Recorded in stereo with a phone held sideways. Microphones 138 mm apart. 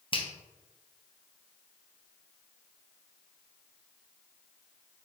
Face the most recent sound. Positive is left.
turn(degrees=35)  # may be behind; listen again after turning